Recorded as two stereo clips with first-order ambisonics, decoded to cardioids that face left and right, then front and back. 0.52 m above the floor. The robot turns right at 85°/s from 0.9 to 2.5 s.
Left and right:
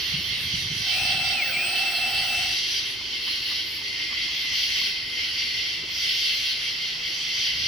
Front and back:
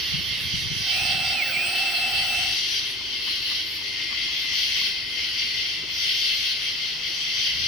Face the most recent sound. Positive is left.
turn(degrees=5)